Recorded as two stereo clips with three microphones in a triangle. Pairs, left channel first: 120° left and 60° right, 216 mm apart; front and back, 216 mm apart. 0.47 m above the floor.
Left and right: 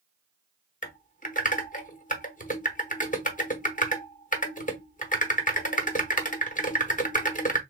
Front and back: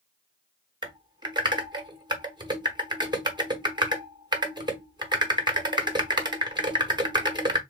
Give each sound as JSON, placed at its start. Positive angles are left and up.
{"t": 0.8, "sound": "typing on a keyboard", "azimuth_deg": 125, "distance_m": 0.8}